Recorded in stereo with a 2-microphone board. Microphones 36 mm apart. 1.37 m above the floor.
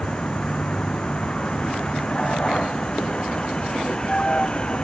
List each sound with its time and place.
0.0 s a vehicle: 25° left (ahead or behind)